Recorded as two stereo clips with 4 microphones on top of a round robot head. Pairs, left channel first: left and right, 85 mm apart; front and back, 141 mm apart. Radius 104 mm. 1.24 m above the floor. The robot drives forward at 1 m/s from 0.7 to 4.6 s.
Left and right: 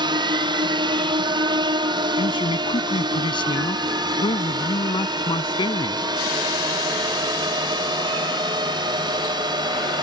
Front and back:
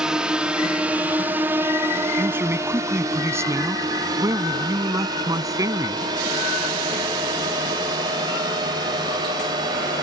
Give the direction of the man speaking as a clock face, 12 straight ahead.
9 o'clock.